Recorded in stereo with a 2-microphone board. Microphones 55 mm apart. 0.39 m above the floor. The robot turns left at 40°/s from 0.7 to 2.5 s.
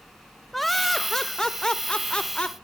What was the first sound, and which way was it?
Laughter, centre (ahead or behind).